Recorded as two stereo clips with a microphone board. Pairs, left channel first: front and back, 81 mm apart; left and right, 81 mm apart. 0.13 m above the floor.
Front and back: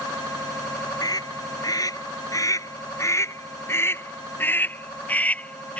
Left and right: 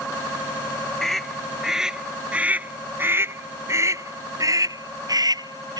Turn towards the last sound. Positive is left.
turn(degrees=-75)